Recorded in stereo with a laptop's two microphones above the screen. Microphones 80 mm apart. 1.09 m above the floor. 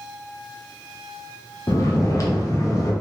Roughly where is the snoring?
Left.